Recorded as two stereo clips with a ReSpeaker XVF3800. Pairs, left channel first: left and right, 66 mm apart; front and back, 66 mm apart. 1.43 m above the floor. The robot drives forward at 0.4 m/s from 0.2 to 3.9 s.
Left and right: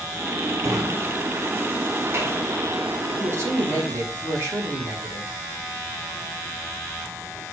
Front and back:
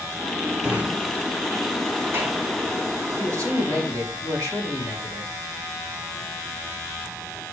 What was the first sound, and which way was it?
A drawer, 110° right.